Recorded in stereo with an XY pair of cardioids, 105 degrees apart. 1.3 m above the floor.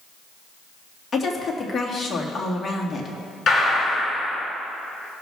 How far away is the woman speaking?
About 2 m.